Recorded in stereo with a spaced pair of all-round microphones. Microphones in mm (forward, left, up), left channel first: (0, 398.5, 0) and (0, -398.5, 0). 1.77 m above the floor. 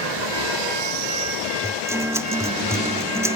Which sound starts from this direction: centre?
A guitar, at 1.6 s.